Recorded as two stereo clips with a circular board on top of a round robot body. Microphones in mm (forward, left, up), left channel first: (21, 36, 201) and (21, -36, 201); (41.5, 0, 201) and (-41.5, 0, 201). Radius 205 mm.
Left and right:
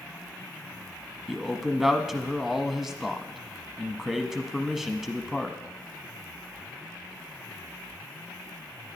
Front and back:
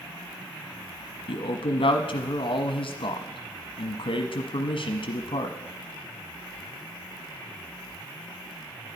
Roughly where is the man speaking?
Ahead.